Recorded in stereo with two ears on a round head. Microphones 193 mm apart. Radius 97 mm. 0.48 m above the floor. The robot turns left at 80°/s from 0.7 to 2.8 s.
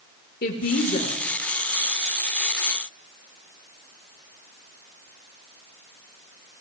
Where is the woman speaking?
70° left, 1.7 m; by 1.2 s 35° left, 1.7 m.